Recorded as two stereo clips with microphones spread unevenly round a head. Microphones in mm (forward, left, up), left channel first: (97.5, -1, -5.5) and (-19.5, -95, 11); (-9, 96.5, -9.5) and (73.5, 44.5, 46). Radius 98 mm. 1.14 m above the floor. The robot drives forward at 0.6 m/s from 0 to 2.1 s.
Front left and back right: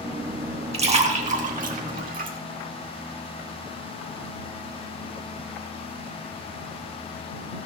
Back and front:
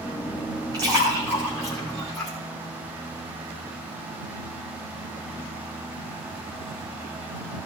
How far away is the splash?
About 1.6 m.